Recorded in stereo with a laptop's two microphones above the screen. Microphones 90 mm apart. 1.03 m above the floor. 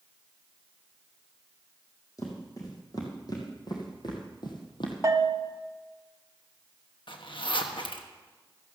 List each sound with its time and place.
2.2 s footsteps: 40° left (ahead or behind), 3 m; by 4.9 s 60° left (ahead or behind), 2 m
5.0 s a bell: 35° right (ahead or behind), 1.0 m
7.1 s a zipper: 65° left (ahead or behind), 1.1 m